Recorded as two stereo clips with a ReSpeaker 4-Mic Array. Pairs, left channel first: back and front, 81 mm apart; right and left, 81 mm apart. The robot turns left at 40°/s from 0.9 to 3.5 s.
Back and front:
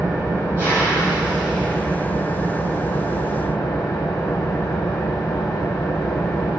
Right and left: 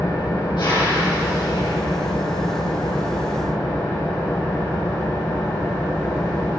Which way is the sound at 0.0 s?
60° right.